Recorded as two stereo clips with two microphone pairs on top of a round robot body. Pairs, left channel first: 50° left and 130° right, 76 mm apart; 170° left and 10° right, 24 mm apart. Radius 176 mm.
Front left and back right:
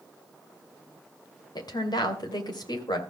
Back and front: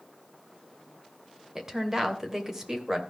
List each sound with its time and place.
1.6 s a woman speaking: 55° left, 2.5 m